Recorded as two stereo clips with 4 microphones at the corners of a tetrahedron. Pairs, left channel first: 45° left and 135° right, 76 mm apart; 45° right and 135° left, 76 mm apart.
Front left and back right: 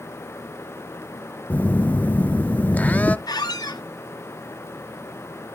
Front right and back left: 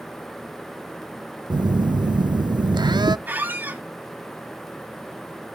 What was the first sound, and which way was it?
A phone buzzing, 115° left.